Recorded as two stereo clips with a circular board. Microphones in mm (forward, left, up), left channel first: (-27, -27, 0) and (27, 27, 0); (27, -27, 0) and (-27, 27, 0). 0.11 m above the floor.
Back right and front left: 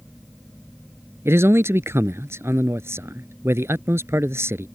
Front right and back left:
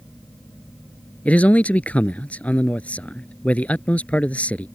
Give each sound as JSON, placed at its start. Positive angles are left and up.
{"t": 1.2, "sound": "a man speaking", "azimuth_deg": 15}